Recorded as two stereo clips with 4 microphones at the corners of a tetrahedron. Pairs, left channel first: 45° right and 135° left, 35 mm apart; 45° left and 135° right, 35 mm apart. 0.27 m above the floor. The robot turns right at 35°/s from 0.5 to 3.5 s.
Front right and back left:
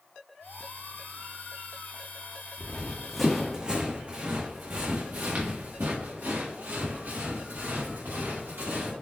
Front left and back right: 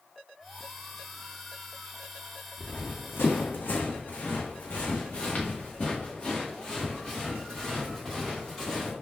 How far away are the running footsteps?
About 1.3 m.